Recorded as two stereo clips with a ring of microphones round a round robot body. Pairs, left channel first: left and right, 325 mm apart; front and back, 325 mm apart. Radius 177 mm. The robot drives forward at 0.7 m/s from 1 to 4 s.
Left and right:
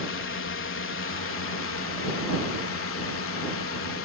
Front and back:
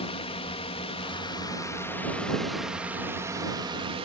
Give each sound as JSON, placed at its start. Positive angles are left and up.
{"t": 0.0, "sound": "a drone", "azimuth_deg": 65}